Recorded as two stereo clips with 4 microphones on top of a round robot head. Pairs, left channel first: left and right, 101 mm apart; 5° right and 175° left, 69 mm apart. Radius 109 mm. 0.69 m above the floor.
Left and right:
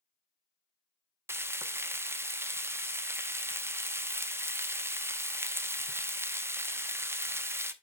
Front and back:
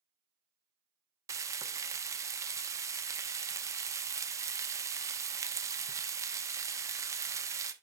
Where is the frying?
155° right, 0.8 m.